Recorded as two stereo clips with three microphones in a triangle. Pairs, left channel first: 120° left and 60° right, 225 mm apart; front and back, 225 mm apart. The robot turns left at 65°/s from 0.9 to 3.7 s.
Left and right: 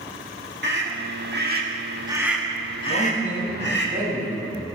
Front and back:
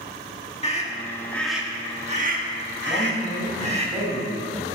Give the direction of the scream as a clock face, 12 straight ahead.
2 o'clock.